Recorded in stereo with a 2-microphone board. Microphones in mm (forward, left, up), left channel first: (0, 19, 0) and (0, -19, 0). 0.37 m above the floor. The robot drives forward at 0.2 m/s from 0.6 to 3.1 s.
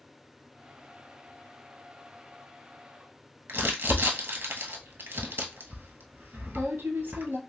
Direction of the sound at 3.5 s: 80° right.